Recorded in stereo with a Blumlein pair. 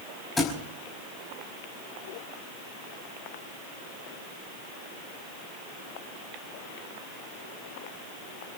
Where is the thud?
10° left, 5 m.